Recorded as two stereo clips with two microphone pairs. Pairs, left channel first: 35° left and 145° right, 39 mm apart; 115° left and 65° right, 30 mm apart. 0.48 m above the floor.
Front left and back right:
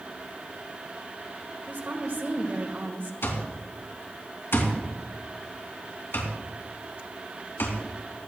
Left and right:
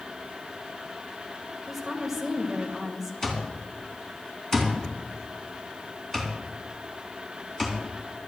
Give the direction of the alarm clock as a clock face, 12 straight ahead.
11 o'clock.